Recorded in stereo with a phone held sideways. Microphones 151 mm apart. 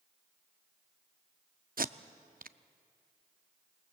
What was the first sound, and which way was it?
Tape being pulled, 70° right (ahead or behind).